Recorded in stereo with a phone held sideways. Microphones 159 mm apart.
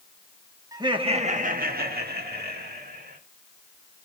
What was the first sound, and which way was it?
Laughter, 20° right (ahead or behind).